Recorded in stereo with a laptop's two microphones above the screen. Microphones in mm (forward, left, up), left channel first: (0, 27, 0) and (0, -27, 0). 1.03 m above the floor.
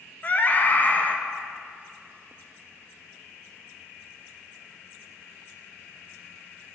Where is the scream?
35° left (ahead or behind), 0.6 m.